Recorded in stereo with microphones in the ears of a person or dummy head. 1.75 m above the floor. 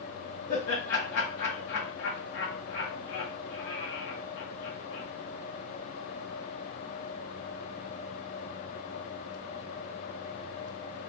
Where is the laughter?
60° left (ahead or behind), 0.8 m.